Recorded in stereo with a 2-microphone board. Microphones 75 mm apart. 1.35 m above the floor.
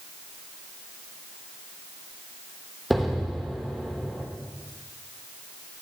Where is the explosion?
Centre (ahead or behind), 2.0 m.